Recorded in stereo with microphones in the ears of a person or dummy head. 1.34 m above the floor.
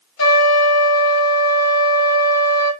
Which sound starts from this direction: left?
A trumpet, at 0.2 s.